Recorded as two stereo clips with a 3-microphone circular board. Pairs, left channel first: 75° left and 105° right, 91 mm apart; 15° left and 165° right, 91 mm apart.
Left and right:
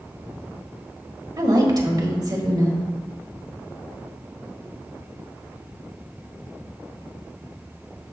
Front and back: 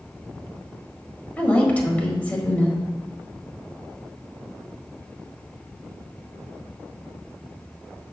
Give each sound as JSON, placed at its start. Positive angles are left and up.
{"t": 1.4, "sound": "a woman speaking", "azimuth_deg": -55, "distance_m": 1.6}